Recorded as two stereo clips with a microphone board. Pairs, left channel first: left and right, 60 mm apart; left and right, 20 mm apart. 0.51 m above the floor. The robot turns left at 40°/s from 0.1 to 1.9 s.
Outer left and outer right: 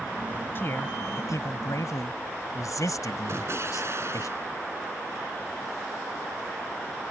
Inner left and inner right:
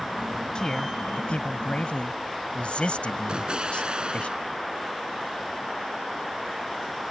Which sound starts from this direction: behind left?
A man speaking, at 0.6 s.